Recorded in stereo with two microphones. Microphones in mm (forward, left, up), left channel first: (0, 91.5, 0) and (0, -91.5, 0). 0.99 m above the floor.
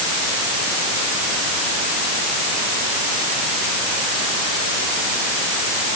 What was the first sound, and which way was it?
Only background noise.